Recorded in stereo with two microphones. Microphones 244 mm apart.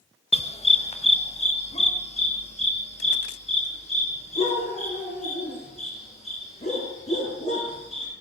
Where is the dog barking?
25° left (ahead or behind), 0.9 m.